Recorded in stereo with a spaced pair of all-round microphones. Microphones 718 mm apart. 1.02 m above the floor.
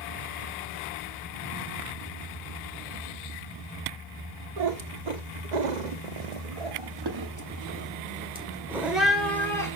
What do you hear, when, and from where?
4.6 s a cat meowing: 55° right (ahead or behind), 1.6 m; by 9.8 s 5° left (ahead or behind), 2.5 m